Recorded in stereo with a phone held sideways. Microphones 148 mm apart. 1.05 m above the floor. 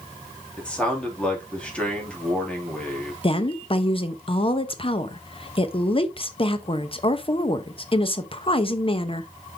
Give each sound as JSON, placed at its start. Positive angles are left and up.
{"t": 0.6, "sound": "a man speaking", "side_deg": 10, "distance_m": 2.5}
{"t": 3.2, "sound": "a woman speaking", "side_deg": 40, "distance_m": 0.8}